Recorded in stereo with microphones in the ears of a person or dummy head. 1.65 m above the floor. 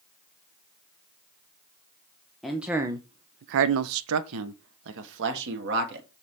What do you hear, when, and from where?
2.4 s a man speaking: 5° right (ahead or behind), 0.8 m; by 6.1 s 50° right (ahead or behind), 1.9 m